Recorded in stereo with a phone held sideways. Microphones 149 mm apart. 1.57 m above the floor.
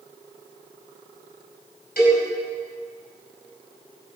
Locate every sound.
2.0 s a cowbell: 80° left, 5 m